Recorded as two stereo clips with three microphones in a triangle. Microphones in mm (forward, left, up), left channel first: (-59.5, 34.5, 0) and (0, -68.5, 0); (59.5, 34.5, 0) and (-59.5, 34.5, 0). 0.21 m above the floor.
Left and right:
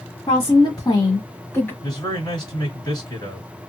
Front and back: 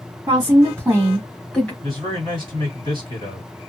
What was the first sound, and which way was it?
A woman speaking, 145° left.